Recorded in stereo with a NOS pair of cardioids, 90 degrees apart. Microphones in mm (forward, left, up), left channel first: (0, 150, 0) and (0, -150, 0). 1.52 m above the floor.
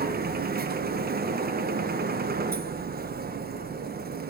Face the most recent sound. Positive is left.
turn(degrees=-30)